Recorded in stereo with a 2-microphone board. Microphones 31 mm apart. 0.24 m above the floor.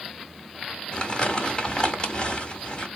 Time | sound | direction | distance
0.9 | crumpling | 35° left (ahead or behind) | 1.1 m